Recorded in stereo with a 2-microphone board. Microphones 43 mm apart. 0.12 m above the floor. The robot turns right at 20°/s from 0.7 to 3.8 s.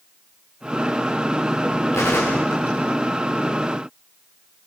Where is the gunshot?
85° left, 5 m; by 3.5 s 55° left (ahead or behind), 5 m.